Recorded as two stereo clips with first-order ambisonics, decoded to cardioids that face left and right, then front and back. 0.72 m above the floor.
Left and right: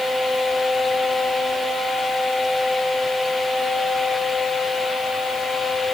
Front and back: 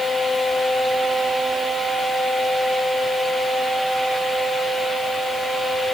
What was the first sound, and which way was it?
Only background noise.